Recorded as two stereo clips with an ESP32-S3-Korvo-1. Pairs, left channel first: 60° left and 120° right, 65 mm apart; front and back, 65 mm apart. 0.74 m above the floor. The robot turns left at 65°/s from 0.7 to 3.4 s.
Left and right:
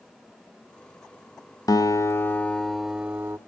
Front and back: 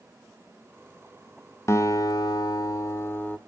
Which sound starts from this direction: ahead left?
A guitar, at 1.7 s.